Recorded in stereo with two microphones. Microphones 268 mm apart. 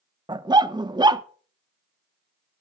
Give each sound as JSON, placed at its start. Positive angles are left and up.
{"t": 0.3, "sound": "a dog barking", "side_deg": -15, "distance_m": 0.6}